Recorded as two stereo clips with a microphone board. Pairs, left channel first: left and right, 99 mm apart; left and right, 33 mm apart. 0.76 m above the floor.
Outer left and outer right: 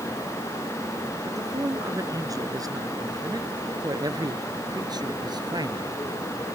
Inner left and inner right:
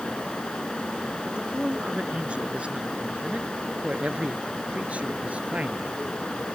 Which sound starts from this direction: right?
A man speaking, at 1.3 s.